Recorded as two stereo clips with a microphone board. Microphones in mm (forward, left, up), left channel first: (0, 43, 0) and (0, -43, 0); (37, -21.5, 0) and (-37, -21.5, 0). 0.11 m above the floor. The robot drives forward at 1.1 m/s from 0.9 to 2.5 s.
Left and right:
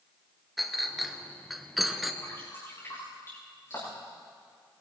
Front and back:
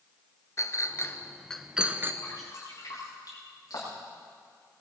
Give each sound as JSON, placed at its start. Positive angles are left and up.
{"t": 0.6, "sound": "a clink", "azimuth_deg": 0, "distance_m": 1.2}
{"t": 2.2, "sound": "dripping", "azimuth_deg": 35, "distance_m": 8.0}